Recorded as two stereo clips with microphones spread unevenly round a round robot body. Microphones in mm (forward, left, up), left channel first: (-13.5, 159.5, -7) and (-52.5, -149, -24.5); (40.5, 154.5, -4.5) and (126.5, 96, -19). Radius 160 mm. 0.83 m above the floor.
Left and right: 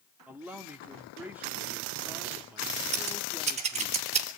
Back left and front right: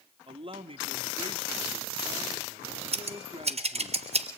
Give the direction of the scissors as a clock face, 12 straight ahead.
1 o'clock.